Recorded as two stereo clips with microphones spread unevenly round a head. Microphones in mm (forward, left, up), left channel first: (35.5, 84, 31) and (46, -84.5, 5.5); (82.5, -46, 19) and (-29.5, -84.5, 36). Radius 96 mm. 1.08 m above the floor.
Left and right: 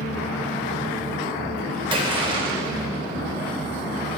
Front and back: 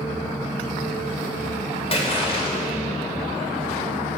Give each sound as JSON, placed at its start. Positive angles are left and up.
{"t": 1.9, "sound": "a splash", "azimuth_deg": -25, "distance_m": 2.0}